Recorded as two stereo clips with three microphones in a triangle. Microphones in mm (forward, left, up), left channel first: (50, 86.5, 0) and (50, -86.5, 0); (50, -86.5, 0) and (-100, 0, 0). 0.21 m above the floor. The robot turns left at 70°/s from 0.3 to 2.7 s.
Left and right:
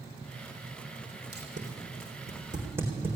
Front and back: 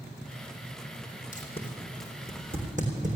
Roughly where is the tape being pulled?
Right.